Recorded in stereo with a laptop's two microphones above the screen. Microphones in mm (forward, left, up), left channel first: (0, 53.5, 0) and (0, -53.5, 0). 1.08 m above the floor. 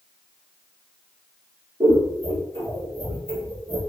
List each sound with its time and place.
1.8 s scissors: 50° right (ahead or behind), 1.6 m